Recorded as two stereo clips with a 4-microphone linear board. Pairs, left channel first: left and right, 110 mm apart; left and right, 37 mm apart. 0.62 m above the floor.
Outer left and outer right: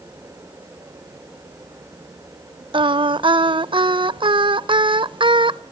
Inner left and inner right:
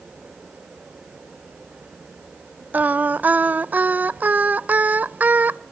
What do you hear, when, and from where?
2.7 s singing: 50° right (ahead or behind), 0.5 m